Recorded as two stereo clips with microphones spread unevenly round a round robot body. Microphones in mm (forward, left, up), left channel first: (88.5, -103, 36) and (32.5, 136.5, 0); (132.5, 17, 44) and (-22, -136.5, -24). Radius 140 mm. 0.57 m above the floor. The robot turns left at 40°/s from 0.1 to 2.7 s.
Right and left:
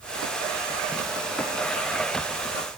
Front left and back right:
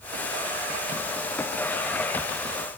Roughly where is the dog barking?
No dog barking in this recording.